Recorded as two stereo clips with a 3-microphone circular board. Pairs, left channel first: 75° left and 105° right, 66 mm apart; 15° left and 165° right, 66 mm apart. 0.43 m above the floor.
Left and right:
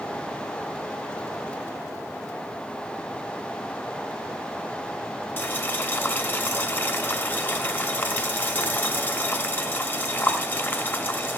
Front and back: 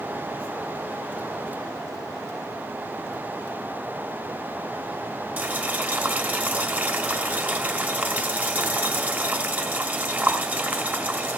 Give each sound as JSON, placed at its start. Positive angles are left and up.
{"t": 5.4, "sound": "boiling", "azimuth_deg": 135, "distance_m": 1.2}